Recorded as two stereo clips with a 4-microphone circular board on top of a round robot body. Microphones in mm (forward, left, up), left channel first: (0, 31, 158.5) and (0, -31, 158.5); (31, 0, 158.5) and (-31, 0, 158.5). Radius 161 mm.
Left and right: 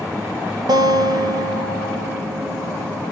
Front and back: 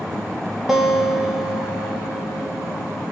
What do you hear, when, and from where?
0.7 s a guitar: 95° right, 0.8 m